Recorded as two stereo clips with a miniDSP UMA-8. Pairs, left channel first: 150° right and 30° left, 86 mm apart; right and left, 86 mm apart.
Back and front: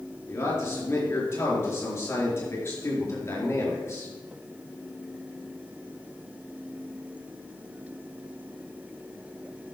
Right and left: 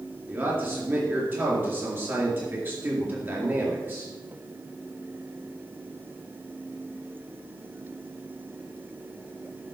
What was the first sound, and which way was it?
A man speaking, 150° left.